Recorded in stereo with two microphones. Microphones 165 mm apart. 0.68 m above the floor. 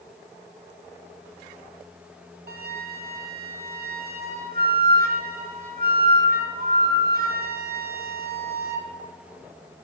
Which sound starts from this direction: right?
A flute, at 2.5 s.